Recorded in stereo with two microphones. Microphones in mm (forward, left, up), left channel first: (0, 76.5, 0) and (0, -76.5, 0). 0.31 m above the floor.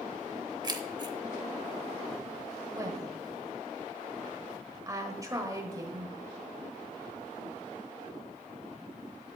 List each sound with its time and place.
0.6 s keys jangling: 30° right (ahead or behind), 0.7 m
2.7 s a woman speaking: 25° right (ahead or behind), 1.3 m